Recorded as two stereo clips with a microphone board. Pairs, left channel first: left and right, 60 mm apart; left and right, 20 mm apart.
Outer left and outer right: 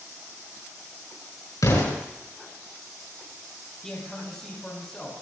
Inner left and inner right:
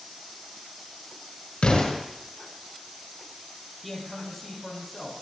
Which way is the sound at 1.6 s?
65° left (ahead or behind).